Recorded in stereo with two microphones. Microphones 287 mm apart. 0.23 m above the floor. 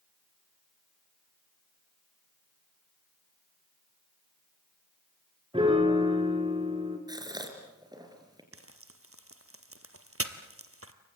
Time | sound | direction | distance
5.5 | a piano | 20° right (ahead or behind) | 2.5 m
7.1 | a gasp | 15° right (ahead or behind) | 4 m
8.5 | frying | 50° right (ahead or behind) | 1.5 m